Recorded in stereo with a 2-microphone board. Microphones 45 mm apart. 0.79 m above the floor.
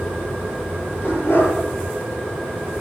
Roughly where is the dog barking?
Left.